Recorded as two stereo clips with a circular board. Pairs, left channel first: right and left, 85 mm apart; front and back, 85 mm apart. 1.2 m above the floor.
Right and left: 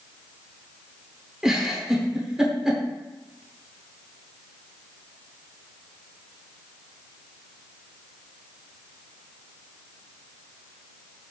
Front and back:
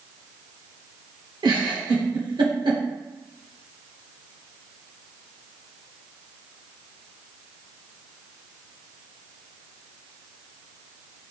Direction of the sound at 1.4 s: 175° left.